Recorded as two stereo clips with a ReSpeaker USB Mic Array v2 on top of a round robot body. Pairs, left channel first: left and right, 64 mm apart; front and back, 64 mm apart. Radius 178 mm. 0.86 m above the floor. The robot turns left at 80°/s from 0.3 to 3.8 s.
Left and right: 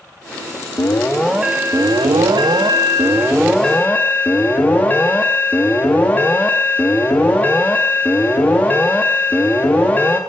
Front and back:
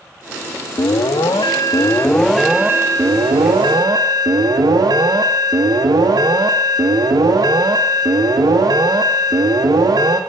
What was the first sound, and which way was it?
An alarm, 40° left.